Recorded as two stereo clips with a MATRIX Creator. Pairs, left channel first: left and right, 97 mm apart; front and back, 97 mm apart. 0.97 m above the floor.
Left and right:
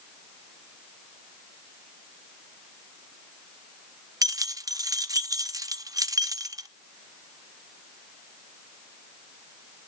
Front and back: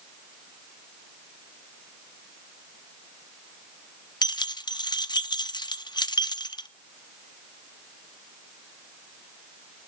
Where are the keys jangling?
40° right, 0.7 m.